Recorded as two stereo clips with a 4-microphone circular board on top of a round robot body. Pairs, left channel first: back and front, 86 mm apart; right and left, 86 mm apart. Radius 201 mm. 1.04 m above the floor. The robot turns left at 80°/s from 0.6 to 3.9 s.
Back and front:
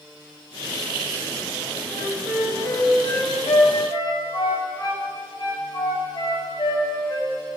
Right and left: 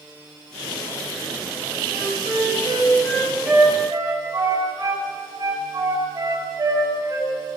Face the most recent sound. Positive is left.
turn(degrees=140)